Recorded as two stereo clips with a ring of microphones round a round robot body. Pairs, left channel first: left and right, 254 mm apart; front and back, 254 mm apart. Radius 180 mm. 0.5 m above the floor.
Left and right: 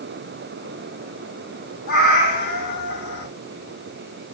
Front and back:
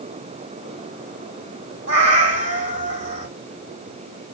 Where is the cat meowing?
155° left, 2 m.